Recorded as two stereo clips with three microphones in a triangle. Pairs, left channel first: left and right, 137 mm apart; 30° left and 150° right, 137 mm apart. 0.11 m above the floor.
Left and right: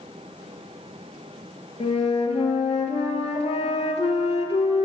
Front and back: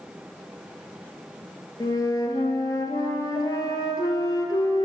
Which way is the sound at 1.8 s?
80° left.